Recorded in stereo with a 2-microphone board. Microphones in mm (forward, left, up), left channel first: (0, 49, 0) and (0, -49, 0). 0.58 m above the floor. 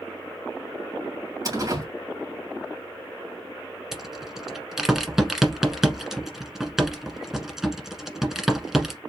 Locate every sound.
1.4 s a door slam: 40° right (ahead or behind), 2.5 m
3.9 s a rattle: 5° right (ahead or behind), 1.1 m